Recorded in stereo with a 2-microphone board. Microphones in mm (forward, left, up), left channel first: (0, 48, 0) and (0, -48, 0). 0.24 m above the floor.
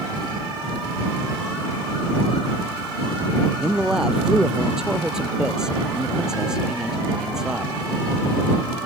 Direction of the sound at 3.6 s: 5° right (ahead or behind).